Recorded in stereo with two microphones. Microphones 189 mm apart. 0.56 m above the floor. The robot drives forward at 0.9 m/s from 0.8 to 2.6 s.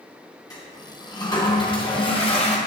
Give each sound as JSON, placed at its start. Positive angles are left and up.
{"t": 0.5, "sound": "a toilet flushing", "side_deg": 20, "distance_m": 3.0}